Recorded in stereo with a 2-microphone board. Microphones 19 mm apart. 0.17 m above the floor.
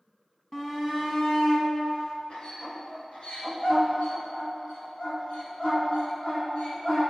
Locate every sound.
0.5 s a shout: 25° left (ahead or behind), 1.3 m; by 7.0 s 75° left (ahead or behind), 5 m